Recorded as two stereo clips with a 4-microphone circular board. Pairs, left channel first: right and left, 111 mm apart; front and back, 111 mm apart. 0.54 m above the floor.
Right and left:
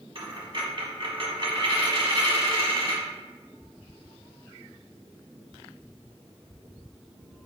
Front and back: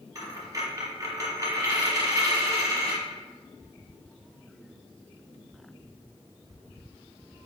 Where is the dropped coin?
120° left, 1.5 m.